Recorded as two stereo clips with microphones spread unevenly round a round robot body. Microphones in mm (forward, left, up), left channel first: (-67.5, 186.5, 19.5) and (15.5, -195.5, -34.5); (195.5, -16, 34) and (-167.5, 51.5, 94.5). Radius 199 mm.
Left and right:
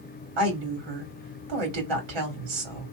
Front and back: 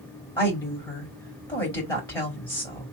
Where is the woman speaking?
85° right, 1.9 m.